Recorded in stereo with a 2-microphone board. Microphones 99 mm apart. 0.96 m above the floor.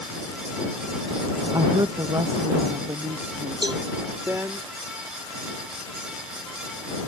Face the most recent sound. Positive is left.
turn(degrees=-50)  # may be behind; listen again after turning